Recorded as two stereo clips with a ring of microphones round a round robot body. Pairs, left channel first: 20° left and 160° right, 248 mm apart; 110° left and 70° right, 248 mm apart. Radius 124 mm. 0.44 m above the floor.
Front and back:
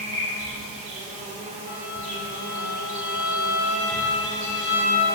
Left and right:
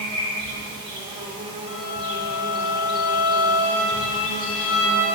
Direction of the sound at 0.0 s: 125° right.